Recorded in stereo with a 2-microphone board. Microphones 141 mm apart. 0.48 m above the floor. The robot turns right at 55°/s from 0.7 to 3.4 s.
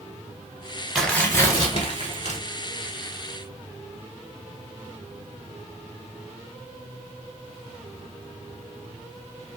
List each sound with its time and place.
0.9 s tearing paper: 5° left, 1.0 m; by 2.4 s 80° left, 1.0 m